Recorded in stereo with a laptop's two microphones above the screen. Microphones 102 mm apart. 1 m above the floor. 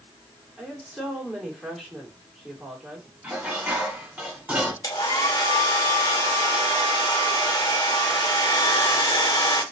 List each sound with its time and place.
0.6 s a woman speaking: 5° left (ahead or behind), 2.5 m
3.2 s dishes clattering: 15° right (ahead or behind), 2.5 m
4.8 s a hair dryer: 40° left (ahead or behind), 1.2 m